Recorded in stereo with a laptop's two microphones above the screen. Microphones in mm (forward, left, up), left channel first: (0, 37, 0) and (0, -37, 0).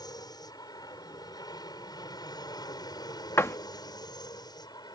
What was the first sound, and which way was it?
An aircraft, 65° left (ahead or behind).